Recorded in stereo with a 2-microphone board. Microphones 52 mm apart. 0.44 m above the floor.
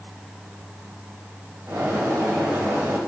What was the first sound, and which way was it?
A bird, 60° right (ahead or behind).